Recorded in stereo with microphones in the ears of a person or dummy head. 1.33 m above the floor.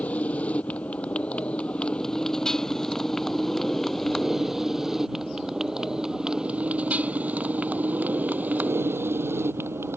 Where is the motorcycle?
10° left (ahead or behind); by 10.0 s 15° right (ahead or behind).